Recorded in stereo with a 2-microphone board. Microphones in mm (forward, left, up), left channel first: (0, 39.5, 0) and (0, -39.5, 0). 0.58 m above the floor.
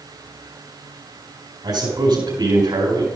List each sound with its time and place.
1.6 s a man speaking: 70° right (ahead or behind), 4.5 m